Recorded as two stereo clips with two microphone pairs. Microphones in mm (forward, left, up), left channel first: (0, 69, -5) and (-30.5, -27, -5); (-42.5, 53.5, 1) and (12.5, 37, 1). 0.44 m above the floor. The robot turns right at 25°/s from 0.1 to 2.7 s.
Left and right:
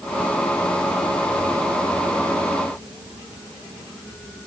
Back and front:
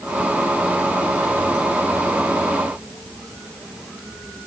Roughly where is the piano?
I don't hear a piano.